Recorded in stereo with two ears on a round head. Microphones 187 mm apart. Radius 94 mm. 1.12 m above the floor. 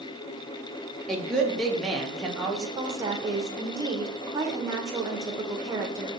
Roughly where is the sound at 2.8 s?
Centre.